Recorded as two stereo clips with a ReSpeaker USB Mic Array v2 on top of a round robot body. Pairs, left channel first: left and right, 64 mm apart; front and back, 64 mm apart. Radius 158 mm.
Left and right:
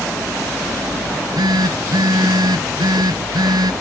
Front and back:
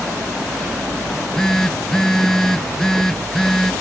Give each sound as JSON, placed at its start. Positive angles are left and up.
{"t": 1.1, "sound": "a phone buzzing", "azimuth_deg": -85}